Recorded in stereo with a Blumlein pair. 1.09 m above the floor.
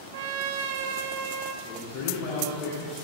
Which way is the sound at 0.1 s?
55° right.